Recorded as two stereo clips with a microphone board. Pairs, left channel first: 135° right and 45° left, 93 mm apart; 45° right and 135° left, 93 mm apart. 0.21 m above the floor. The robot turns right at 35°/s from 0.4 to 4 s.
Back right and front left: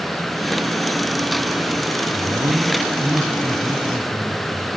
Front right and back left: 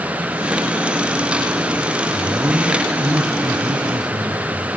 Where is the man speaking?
65° left, 2.5 m; by 4.7 s 130° left, 2.5 m.